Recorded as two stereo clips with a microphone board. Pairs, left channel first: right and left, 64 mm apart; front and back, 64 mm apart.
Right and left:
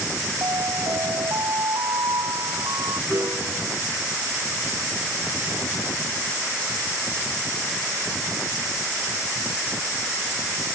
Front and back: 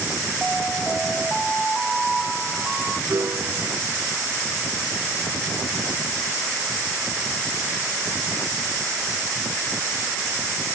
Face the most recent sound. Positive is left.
turn(degrees=135)